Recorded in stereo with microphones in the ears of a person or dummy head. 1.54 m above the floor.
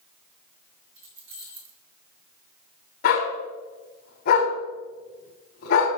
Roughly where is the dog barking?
Left.